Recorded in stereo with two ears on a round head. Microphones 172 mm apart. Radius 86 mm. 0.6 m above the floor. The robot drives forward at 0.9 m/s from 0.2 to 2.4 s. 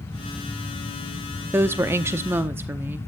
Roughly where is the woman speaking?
Centre.